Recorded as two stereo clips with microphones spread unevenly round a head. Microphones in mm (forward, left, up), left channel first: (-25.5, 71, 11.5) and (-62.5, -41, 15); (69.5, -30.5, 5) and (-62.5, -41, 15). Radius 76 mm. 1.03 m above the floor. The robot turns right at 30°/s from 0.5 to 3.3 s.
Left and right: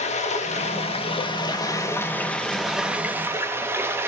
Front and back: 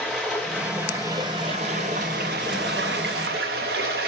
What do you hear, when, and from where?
0.0 s running water: 95° left, 1.1 m; by 4.1 s straight behind, 1.1 m